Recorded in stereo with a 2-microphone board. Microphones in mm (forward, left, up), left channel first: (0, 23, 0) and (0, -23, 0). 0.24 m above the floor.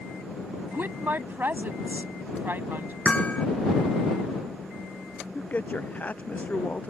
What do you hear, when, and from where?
0.7 s a woman speaking: 45° right (ahead or behind)
3.0 s hammering: 25° left (ahead or behind)
5.3 s a man speaking: 35° left (ahead or behind)